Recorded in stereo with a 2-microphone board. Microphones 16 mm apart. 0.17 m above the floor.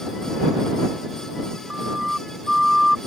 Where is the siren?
30° right (ahead or behind); by 3.0 s 10° right (ahead or behind).